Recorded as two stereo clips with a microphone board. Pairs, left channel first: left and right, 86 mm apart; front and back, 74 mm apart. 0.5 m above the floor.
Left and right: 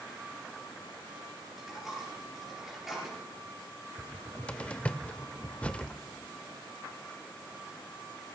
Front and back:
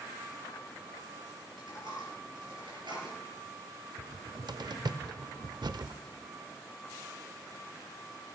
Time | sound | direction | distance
1.5 | a dropped coin | 175° right | 4 m
4.0 | a cupboard door | 165° left | 0.5 m